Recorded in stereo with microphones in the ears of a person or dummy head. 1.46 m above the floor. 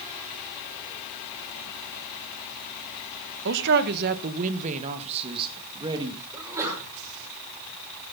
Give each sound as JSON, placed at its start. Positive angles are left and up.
{"t": 3.5, "sound": "a man speaking", "side_deg": -70, "distance_m": 1.5}
{"t": 6.3, "sound": "a sneeze", "side_deg": -25, "distance_m": 6.5}